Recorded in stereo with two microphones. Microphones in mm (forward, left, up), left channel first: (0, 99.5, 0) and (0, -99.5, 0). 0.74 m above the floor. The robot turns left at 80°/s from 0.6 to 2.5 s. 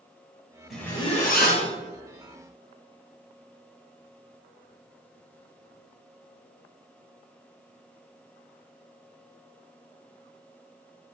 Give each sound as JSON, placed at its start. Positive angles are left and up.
{"t": 0.7, "sound": "a zipper", "azimuth_deg": 180, "distance_m": 1.8}